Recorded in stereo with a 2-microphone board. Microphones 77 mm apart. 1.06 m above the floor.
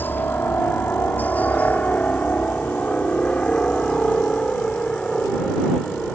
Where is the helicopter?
25° left (ahead or behind); by 6.2 s 5° left (ahead or behind).